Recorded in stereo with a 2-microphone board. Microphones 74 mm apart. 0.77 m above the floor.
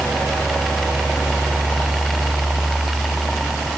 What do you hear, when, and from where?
Only background noise.